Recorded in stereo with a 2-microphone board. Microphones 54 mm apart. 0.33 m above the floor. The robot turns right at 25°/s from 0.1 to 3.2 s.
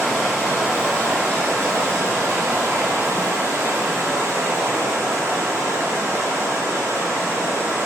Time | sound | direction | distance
0.0 | running water | 170° right | 1.7 m